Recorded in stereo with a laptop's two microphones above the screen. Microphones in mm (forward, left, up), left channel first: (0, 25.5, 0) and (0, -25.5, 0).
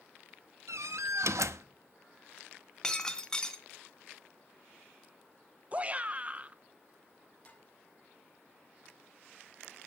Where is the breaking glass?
15° left (ahead or behind), 2 m.